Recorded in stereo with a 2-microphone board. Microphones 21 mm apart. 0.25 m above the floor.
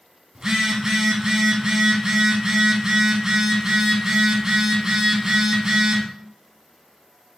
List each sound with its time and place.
0.3 s a phone buzzing: 30° right (ahead or behind), 0.7 m